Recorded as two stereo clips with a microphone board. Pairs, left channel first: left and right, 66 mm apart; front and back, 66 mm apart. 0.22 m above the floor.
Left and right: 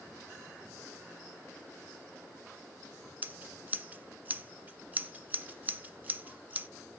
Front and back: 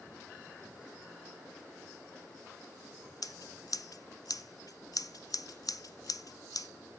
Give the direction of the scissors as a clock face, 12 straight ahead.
1 o'clock.